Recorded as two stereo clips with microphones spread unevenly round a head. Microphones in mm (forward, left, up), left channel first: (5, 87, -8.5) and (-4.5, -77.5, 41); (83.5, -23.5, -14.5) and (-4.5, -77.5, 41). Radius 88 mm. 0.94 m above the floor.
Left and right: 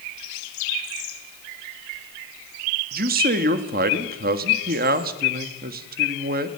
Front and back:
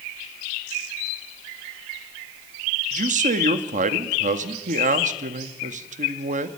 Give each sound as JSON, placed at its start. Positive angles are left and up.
{"t": 2.9, "sound": "a man speaking", "azimuth_deg": -135, "distance_m": 1.5}